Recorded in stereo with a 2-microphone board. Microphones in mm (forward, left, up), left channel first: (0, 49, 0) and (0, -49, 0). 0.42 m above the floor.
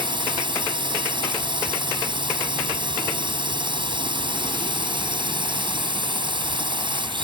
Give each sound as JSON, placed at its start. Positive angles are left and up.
{"t": 0.0, "sound": "a drone", "side_deg": -55}